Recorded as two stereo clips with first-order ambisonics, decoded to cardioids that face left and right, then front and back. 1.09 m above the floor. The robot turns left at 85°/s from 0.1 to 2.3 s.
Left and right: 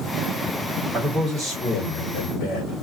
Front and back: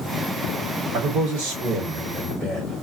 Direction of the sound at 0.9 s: 140° right.